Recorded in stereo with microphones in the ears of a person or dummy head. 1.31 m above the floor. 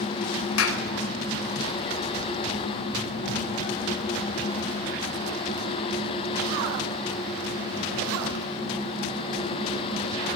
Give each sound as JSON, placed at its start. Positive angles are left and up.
{"t": 0.6, "sound": "a clap", "side_deg": 85, "distance_m": 5.5}